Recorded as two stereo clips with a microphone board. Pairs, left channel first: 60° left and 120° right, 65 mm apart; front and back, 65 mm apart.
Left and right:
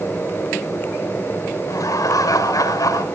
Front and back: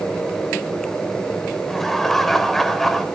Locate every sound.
1.6 s laughter: 90° left, 4 m